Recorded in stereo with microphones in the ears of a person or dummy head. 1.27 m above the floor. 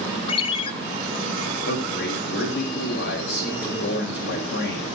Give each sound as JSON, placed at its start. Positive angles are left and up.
{"t": 0.3, "sound": "a ringtone", "side_deg": 30, "distance_m": 1.0}
{"t": 1.6, "sound": "a man speaking", "side_deg": 70, "distance_m": 3.5}